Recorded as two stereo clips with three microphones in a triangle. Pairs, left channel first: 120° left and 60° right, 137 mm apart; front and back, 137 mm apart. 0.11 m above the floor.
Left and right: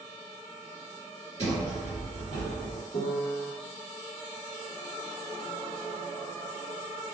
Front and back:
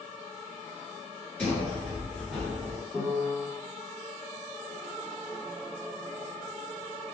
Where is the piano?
95° left, 1.2 m.